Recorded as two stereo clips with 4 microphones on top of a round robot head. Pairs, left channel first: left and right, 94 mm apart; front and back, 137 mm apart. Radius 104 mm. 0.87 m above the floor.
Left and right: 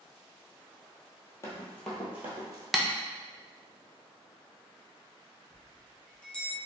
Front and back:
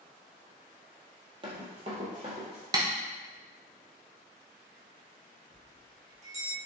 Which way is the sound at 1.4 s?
135° left.